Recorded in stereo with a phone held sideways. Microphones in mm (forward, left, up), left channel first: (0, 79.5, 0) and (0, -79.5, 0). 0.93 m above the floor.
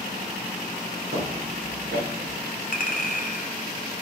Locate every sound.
1.1 s footsteps: 65° right (ahead or behind), 3.5 m; by 2.4 s 75° right (ahead or behind), 3.5 m
2.7 s a clink: 45° left (ahead or behind), 1.1 m